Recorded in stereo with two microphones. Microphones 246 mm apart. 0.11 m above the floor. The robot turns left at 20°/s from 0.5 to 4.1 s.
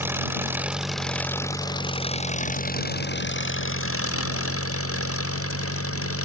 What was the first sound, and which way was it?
An engine running, 170° right.